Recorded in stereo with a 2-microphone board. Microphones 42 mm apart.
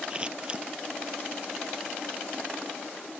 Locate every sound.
0.1 s scissors: 20° right (ahead or behind)